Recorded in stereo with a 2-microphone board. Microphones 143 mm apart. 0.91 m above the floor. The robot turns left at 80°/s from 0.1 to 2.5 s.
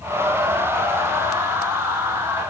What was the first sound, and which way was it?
Only background noise.